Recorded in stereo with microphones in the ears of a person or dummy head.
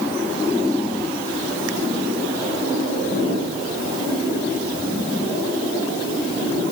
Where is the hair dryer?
I don't hear a hair dryer.